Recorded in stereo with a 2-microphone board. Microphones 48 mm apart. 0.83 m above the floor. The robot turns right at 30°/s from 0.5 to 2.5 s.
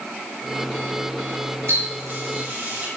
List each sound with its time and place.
1.7 s a running tap: 65° right (ahead or behind), 3.5 m; by 2.9 s 40° right (ahead or behind), 3.5 m